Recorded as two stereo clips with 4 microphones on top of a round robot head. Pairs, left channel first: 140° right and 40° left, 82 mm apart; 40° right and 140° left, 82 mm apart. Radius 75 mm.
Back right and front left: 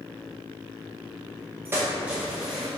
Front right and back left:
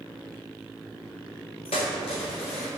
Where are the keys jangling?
20° right, 0.8 m; by 2.7 s 40° right, 1.5 m.